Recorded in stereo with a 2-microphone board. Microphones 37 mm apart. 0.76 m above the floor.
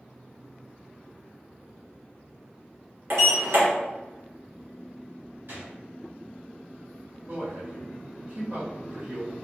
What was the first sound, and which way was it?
A sliding door, 70° right (ahead or behind).